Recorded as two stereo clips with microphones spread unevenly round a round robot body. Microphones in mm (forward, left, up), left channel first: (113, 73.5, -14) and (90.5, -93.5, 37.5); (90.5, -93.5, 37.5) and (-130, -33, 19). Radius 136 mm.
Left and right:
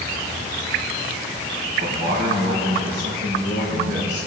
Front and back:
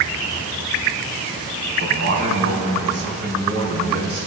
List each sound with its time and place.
1.8 s a man speaking: 165° right, 3.5 m; by 4.3 s 150° right, 5 m